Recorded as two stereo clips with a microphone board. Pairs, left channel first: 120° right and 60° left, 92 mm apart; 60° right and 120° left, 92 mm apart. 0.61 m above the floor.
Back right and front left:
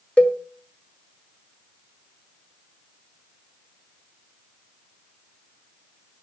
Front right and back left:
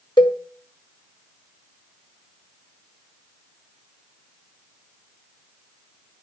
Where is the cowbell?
45° right, 1.6 m.